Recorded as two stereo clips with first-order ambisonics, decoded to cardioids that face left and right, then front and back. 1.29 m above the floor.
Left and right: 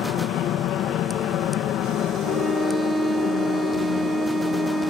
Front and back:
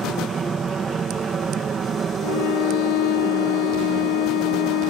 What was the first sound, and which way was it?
An aircraft, 115° left.